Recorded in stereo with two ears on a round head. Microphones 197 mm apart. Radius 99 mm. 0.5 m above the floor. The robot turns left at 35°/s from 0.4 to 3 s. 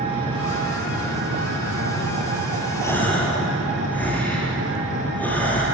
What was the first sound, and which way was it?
An engine running, 25° right.